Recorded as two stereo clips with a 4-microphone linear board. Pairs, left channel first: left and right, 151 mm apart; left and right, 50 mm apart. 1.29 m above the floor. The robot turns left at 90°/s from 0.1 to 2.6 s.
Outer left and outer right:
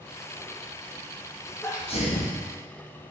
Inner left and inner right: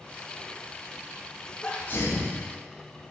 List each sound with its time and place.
1.6 s a sneeze: 165° left, 1.7 m; by 2.4 s 100° left, 1.7 m